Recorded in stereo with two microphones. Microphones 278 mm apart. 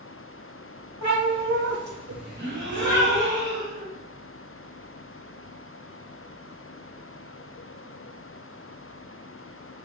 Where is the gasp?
40° right (ahead or behind), 1.5 m.